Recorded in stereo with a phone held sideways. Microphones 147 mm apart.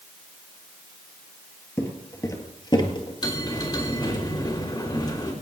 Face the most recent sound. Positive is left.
turn(degrees=30)  # may be behind; listen again after turning